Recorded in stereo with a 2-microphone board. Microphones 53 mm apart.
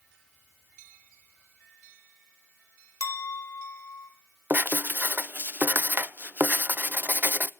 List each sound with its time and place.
3.0 s a clink: 70° left (ahead or behind), 2 m
4.5 s writing: 35° right (ahead or behind), 0.6 m